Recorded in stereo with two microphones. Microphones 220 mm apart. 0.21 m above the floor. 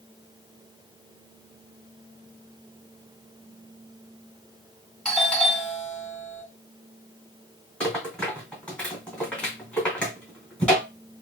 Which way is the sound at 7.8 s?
5° left (ahead or behind).